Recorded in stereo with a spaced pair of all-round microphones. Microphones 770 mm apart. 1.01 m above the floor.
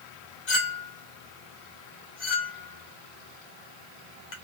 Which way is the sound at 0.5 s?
65° left (ahead or behind).